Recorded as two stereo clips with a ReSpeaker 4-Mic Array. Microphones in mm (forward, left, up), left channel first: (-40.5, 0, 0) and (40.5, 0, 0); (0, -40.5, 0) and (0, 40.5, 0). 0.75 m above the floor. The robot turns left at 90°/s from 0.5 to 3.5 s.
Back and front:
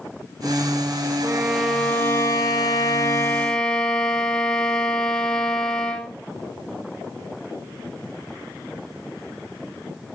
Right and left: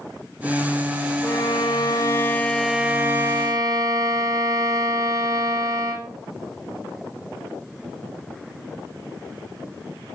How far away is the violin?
About 1.2 m.